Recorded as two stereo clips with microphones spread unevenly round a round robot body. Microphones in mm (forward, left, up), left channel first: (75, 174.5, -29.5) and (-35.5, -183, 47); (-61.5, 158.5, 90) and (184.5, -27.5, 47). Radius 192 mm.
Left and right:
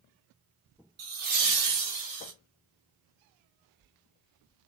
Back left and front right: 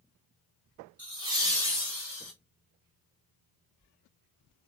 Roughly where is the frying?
I don't hear frying.